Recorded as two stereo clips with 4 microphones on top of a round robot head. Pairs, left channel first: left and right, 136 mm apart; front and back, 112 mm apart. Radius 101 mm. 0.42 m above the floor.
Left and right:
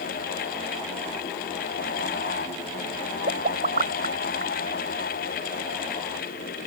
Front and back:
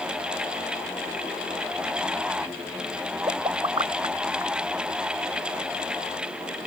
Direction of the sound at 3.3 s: 120° right.